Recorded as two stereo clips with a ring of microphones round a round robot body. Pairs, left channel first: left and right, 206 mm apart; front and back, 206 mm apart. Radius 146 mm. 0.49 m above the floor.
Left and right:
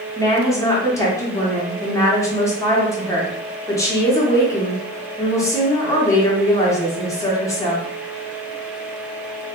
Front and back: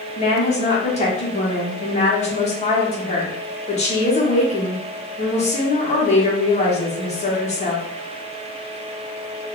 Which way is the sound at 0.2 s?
25° left.